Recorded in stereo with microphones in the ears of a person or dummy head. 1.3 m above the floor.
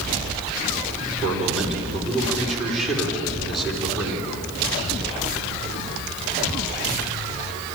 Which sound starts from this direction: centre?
A man speaking, at 1.2 s.